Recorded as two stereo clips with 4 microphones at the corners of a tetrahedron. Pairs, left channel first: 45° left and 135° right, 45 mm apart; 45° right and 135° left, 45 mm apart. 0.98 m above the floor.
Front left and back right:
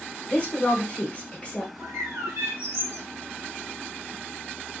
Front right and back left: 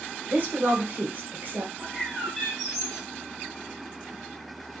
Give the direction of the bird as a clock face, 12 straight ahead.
5 o'clock.